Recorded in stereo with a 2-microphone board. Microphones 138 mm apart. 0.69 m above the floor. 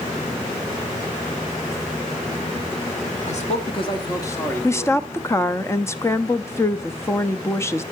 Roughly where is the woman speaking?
Centre.